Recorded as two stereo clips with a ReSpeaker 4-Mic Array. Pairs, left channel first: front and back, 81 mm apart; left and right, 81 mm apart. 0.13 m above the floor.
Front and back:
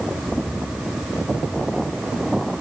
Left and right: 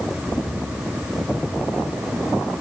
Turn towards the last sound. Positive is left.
No sound to turn to.